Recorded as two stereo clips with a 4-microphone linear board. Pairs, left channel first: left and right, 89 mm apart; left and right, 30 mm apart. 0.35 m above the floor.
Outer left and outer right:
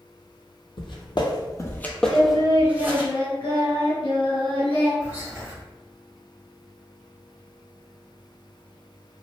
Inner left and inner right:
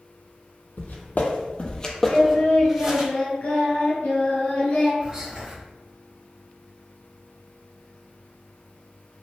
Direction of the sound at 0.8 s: 70° left (ahead or behind).